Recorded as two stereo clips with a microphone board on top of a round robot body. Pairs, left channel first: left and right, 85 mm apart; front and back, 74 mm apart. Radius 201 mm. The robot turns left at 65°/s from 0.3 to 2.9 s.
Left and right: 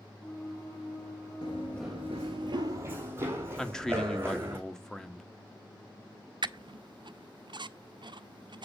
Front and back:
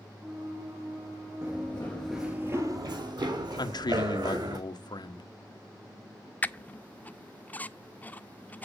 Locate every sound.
1.4 s running footsteps: 115° left, 0.8 m; by 4.6 s 155° right, 4 m
3.6 s a man speaking: 5° left, 1.4 m
6.4 s a squeak: 70° right, 0.8 m